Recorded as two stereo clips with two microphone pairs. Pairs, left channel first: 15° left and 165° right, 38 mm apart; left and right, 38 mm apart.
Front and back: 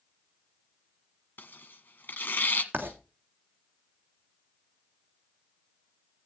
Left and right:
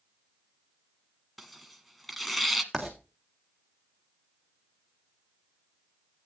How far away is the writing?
About 2.5 m.